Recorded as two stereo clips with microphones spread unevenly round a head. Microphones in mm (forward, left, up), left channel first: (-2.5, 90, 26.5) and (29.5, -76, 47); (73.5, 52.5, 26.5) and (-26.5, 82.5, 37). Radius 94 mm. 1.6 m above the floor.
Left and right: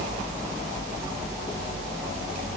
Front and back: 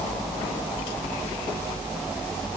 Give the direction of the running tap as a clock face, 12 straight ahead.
I don't hear a running tap.